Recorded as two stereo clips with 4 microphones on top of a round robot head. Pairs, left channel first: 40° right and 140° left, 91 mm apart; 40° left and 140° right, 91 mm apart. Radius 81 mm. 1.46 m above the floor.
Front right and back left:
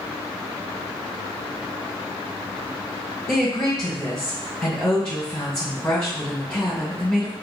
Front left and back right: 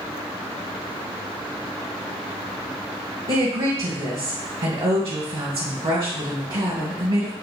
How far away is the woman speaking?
About 0.9 m.